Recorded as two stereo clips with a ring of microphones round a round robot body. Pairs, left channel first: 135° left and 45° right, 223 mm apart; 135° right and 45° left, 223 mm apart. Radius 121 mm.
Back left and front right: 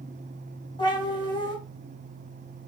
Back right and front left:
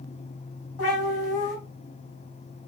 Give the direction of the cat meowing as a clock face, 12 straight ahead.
5 o'clock.